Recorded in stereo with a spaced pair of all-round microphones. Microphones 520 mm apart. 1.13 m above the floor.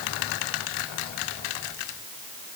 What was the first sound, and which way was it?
Only background noise.